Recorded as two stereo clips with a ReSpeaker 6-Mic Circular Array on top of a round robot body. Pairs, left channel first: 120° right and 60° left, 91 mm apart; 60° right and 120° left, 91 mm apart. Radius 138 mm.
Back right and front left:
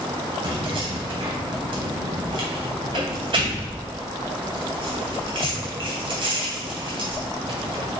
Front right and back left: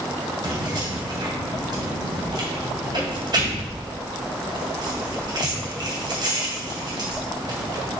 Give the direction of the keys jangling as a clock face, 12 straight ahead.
9 o'clock.